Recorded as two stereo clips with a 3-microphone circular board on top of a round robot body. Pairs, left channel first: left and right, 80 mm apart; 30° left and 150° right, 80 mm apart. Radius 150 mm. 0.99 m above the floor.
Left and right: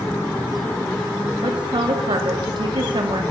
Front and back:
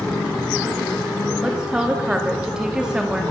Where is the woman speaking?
70° right, 3 m.